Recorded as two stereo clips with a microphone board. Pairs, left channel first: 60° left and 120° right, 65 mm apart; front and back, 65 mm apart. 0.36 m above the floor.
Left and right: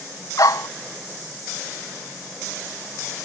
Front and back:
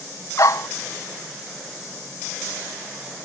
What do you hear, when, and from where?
0.4 s a dog barking: 35° left